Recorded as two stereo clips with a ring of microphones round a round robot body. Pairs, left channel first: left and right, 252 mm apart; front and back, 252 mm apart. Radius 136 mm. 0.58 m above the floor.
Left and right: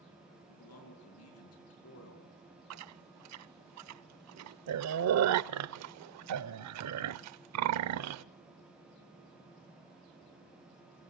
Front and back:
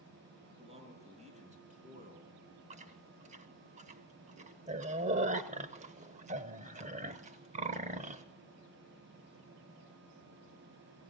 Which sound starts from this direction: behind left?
A man speaking, at 0.5 s.